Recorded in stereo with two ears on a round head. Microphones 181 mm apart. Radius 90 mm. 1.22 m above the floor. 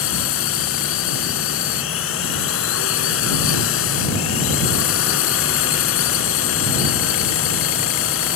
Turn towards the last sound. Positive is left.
turn(degrees=75)  # may be behind; listen again after turning